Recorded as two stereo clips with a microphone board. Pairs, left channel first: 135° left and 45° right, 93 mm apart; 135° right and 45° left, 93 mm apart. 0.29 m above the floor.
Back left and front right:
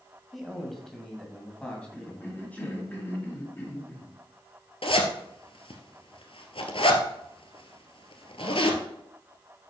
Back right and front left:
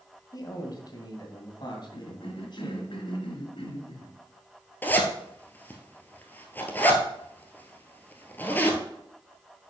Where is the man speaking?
135° right, 1.9 m; by 2.9 s 155° right, 3 m.